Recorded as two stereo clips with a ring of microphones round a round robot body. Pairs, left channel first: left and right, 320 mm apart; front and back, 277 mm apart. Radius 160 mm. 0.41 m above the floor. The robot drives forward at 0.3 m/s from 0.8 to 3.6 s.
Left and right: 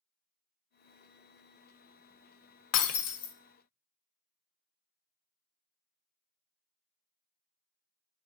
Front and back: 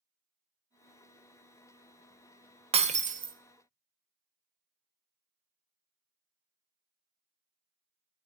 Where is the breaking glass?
115° left, 0.8 m; by 3.4 s 130° left, 0.8 m.